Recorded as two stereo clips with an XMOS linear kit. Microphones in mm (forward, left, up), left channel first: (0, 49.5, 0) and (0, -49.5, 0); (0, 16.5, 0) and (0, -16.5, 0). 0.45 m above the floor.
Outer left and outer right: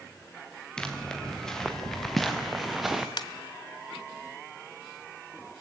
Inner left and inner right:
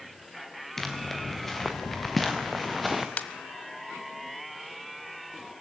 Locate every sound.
0.8 s footsteps: 10° left (ahead or behind), 3.5 m; by 3.1 s 5° right (ahead or behind), 2 m
3.2 s a ringtone: 55° left (ahead or behind), 1.2 m